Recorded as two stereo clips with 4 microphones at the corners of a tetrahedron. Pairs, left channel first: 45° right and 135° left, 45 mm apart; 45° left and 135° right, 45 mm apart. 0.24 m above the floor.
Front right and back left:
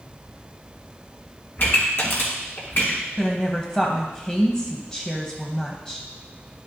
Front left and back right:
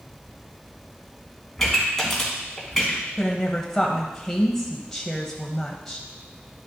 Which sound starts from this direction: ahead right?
A pop, at 1.6 s.